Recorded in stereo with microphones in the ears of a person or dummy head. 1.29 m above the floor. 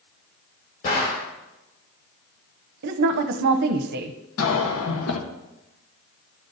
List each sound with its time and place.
0.8 s a gunshot: 45° left (ahead or behind), 3 m
2.8 s a woman speaking: 55° right (ahead or behind), 0.7 m
4.4 s a cough: 75° left (ahead or behind), 1.4 m